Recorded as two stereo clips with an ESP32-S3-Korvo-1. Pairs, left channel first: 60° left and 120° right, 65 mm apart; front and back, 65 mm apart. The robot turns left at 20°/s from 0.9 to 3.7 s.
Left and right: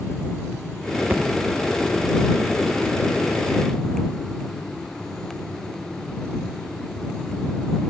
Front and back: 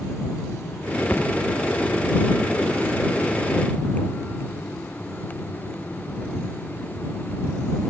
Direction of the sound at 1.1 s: 60° right.